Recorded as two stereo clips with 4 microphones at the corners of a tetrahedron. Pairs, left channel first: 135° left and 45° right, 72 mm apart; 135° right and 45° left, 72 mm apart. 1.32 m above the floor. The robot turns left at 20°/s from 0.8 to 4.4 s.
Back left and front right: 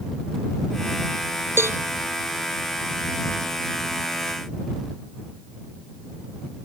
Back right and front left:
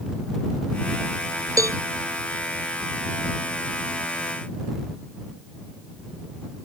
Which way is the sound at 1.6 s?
10° left.